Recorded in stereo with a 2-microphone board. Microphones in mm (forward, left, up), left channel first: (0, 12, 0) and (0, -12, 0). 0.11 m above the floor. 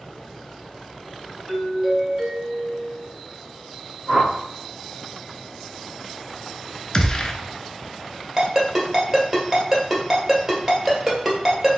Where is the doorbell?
20° right (ahead or behind), 1.7 m.